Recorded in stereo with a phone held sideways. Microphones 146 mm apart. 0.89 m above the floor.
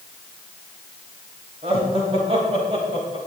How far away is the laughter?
About 5.5 m.